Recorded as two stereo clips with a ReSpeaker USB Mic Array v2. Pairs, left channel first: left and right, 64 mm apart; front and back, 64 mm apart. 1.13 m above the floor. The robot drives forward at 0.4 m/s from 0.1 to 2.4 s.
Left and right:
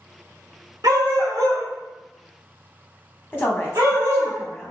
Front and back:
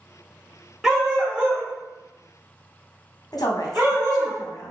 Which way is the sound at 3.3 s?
25° left.